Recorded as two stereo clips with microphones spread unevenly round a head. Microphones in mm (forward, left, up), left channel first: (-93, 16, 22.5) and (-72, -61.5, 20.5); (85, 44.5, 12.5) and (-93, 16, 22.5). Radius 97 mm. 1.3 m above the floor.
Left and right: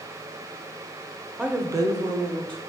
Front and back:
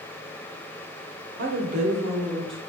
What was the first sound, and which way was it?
A woman speaking, 155° right.